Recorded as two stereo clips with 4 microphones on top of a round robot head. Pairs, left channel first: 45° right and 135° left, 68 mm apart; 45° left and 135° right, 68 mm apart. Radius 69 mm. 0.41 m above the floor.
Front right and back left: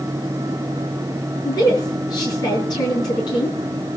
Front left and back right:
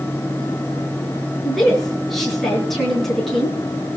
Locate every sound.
1.4 s a woman speaking: 45° right, 7.5 m